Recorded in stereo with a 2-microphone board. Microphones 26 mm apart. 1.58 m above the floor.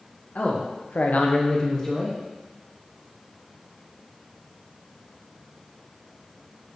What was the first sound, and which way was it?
A man speaking, 65° left (ahead or behind).